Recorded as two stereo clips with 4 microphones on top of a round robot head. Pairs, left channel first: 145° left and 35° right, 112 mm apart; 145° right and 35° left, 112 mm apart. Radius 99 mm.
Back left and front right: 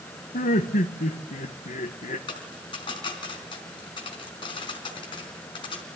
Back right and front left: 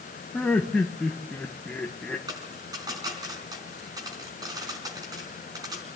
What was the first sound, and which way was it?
Laughter, 135° left.